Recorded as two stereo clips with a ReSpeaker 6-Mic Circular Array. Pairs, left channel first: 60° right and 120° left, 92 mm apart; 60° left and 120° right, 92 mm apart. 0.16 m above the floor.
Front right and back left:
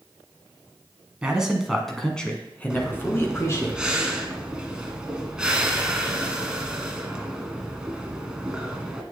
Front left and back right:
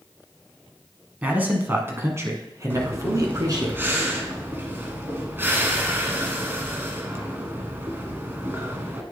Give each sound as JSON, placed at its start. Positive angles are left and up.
{"t": 1.2, "sound": "a man speaking", "azimuth_deg": -170, "distance_m": 1.7}
{"t": 2.7, "sound": "breathing", "azimuth_deg": -165, "distance_m": 1.2}